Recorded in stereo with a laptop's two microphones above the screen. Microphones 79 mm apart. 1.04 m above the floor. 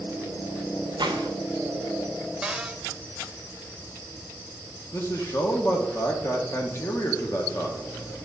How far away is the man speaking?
About 0.8 m.